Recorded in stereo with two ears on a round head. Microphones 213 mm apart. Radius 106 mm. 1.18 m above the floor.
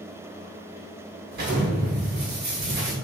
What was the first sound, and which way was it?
An explosion, 45° right (ahead or behind).